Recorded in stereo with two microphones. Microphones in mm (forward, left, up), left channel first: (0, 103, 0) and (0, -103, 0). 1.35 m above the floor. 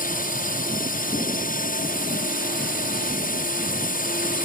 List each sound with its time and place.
0.0 s a drone: 40° left (ahead or behind)